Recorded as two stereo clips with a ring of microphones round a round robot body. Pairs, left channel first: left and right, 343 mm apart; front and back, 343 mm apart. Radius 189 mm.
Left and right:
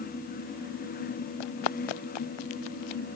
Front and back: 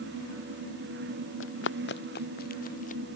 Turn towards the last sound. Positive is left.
turn(degrees=70)